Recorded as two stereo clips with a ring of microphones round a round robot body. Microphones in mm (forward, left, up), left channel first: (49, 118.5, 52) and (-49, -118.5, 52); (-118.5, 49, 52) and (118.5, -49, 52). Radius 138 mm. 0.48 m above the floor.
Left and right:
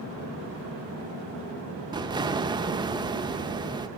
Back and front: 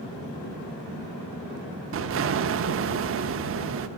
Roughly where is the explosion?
Ahead right.